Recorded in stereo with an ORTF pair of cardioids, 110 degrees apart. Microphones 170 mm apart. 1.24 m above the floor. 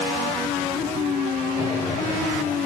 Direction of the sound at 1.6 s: 35° left.